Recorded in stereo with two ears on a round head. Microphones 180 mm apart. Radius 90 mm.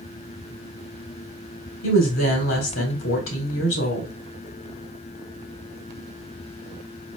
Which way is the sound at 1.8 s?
70° left (ahead or behind).